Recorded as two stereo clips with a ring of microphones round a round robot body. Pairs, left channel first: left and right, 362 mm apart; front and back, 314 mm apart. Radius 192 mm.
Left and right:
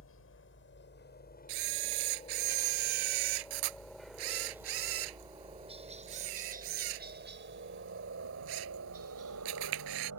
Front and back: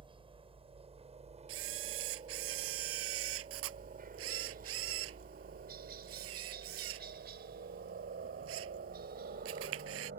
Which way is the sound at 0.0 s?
115° left.